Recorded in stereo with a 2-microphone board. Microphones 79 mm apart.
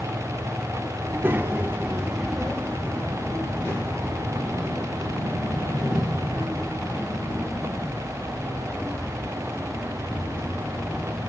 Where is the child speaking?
30° right (ahead or behind), 1.5 m; by 11.2 s 35° left (ahead or behind), 8 m.